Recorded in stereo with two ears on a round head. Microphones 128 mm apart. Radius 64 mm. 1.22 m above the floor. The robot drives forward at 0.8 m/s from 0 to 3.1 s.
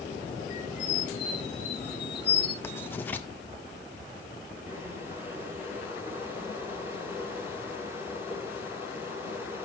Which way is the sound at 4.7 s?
15° right (ahead or behind).